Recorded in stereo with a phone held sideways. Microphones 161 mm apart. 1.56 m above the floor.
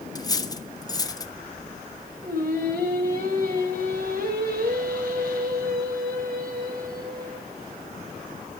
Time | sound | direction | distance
0.1 | cutlery clinking | 25° left (ahead or behind) | 1.1 m
2.2 | singing | 75° right (ahead or behind) | 6 m